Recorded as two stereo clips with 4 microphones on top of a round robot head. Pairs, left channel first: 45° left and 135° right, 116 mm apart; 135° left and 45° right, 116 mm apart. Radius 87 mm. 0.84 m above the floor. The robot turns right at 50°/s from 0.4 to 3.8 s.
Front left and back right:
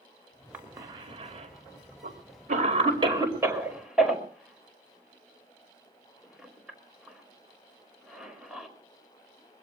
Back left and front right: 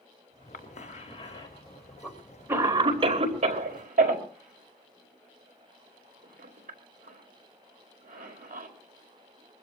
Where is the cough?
145° left, 5 m; by 8.7 s 50° right, 5 m.